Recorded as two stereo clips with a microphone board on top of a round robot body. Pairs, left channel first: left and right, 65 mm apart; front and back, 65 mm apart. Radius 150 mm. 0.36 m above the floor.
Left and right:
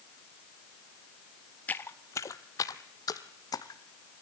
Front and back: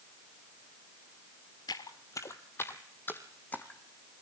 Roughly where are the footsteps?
Ahead left.